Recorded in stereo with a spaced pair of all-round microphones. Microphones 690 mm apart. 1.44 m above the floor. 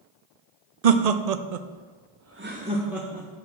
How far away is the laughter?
About 0.7 m.